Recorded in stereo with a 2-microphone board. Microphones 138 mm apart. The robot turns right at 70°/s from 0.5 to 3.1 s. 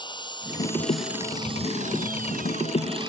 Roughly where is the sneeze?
I don't hear a sneeze.